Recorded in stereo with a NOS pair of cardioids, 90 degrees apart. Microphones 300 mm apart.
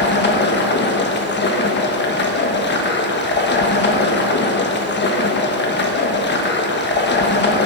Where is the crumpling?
No crumpling in this recording.